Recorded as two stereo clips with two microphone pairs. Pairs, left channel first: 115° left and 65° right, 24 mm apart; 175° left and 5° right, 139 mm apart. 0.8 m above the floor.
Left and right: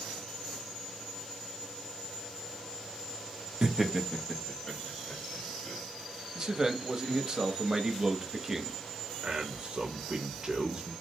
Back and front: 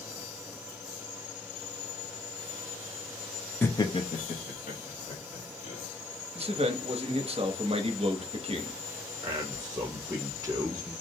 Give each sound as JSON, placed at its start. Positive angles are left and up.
{"t": 3.6, "sound": "laughter", "azimuth_deg": -115, "distance_m": 0.6}
{"t": 6.3, "sound": "a man speaking", "azimuth_deg": -15, "distance_m": 0.6}
{"t": 9.2, "sound": "a man speaking", "azimuth_deg": -55, "distance_m": 0.6}